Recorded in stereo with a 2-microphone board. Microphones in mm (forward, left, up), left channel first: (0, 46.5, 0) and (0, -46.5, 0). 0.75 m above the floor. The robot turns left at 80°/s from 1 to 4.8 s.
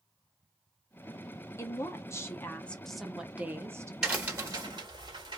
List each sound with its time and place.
1.6 s a woman speaking: 110° left, 0.9 m; by 3.9 s 75° right, 0.9 m
4.0 s a crack: 5° right (ahead or behind), 1.7 m; by 5.4 s 55° right (ahead or behind), 1.7 m